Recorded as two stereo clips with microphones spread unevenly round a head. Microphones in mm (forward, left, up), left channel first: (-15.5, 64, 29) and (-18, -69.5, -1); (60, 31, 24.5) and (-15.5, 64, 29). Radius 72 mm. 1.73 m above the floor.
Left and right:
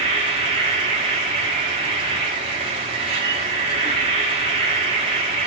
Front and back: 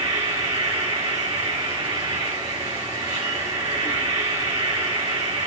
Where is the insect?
140° right, 5 m.